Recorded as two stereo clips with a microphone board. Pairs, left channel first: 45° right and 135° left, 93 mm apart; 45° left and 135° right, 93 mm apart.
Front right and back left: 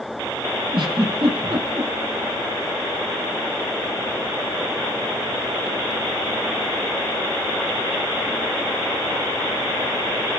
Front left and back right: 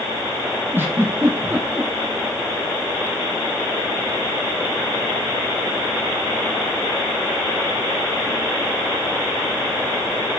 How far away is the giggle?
About 5.5 m.